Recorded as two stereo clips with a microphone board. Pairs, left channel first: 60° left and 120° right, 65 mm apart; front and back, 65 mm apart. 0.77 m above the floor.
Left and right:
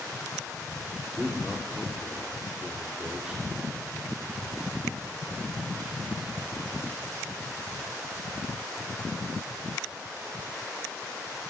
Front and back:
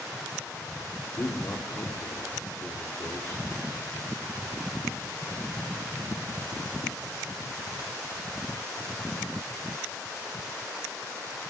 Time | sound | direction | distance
1.2 | a man speaking | 40° right | 2 m